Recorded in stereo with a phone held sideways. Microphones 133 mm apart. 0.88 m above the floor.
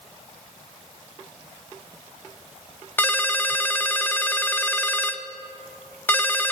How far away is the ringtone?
About 0.7 m.